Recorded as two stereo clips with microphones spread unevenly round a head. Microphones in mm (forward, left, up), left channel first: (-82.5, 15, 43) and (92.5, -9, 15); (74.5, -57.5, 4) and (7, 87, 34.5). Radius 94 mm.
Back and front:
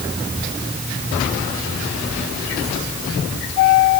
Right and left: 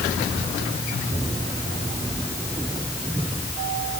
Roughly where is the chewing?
No chewing in this recording.